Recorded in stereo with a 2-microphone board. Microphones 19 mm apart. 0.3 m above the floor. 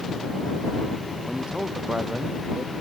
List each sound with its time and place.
1.2 s a man speaking: 60° right (ahead or behind)